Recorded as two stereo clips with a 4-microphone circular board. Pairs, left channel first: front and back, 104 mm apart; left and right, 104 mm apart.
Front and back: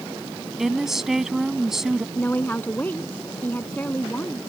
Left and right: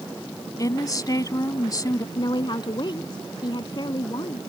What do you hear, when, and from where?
0.6 s a woman speaking: 95° left
2.1 s a woman speaking: 70° left